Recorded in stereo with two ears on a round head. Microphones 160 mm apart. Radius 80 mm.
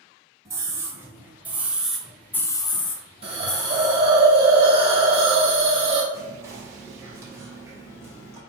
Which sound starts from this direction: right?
A hiss, at 3.2 s.